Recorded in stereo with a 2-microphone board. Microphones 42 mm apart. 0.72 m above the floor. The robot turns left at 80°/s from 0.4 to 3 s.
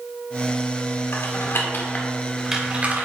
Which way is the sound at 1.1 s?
70° left (ahead or behind).